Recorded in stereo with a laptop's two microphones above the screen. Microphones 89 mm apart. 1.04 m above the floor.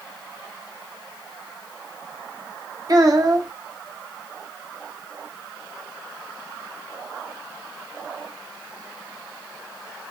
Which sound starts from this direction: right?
A child speaking, at 2.9 s.